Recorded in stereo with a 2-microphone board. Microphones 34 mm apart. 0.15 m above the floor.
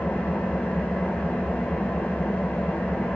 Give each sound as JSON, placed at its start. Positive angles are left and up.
{"t": 0.0, "sound": "an engine running", "side_deg": 80, "distance_m": 7.5}